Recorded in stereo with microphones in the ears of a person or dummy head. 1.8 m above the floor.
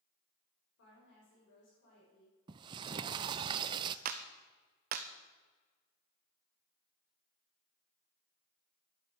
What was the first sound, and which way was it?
A woman speaking, 70° left (ahead or behind).